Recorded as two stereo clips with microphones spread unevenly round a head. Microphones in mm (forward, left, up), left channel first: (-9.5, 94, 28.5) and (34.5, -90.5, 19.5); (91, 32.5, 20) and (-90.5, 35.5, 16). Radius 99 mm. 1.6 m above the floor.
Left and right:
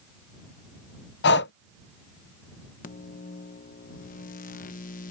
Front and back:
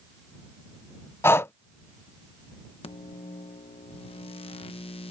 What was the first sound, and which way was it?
Breathing, 75° left.